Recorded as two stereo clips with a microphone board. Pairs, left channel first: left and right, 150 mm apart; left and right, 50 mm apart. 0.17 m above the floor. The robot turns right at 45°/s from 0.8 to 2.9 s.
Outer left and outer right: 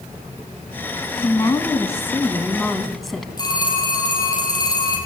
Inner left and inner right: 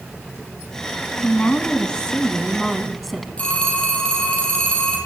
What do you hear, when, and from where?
1.2 s a woman speaking: 20° left (ahead or behind), 1.3 m; by 3.3 s centre (ahead or behind), 1.3 m
3.4 s a phone ringing: 25° left (ahead or behind), 4.5 m